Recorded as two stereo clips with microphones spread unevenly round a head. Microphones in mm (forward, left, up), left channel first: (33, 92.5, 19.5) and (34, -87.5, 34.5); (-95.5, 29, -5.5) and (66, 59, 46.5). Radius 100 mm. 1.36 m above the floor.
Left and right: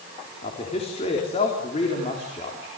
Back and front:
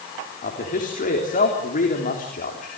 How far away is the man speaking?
About 3.5 m.